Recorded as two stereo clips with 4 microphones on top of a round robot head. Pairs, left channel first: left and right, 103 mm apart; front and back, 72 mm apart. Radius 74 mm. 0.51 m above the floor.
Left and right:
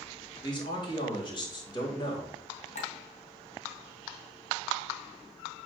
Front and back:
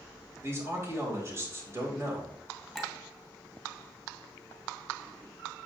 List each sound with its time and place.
0.4 s a man speaking: 130° left, 3 m
2.8 s a clink: 90° left, 2.5 m